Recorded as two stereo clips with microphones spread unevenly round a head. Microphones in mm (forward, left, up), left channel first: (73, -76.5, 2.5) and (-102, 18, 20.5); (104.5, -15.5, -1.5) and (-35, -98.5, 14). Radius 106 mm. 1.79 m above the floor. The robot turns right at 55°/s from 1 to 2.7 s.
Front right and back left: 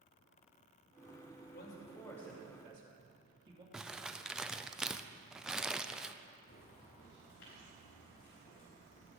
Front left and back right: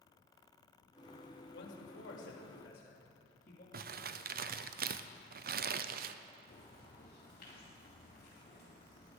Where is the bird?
10° left, 4.5 m.